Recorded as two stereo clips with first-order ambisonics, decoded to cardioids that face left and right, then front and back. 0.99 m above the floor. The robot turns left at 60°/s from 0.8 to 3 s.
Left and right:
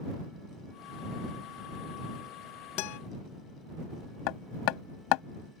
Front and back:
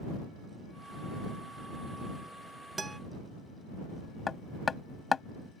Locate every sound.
2.8 s a guitar: 105° left; by 3.0 s 90° left
4.3 s hammering: 70° left